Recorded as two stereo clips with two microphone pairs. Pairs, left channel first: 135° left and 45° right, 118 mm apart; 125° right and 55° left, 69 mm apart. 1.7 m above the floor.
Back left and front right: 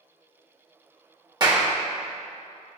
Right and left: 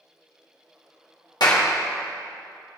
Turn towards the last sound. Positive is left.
turn(degrees=-100)